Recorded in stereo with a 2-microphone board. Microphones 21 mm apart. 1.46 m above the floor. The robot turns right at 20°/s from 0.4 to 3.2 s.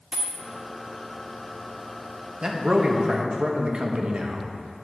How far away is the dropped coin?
About 1.2 m.